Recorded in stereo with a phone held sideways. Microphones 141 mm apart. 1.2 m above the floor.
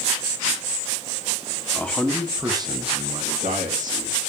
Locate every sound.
1.7 s a man speaking: 10° left (ahead or behind), 2 m; by 4.3 s 85° right, 3 m